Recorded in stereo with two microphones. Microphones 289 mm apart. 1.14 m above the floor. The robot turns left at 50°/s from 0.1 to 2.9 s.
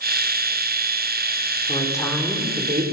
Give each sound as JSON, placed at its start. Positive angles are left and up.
{"t": 1.7, "sound": "a woman speaking", "azimuth_deg": 25, "distance_m": 4.0}